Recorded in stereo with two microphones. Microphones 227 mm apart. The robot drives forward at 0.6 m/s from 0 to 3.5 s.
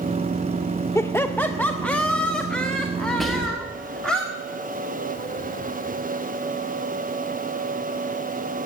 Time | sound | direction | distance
0.9 | laughter | 10° left (ahead or behind) | 0.5 m
3.2 | whispering | centre (ahead or behind) | 1.0 m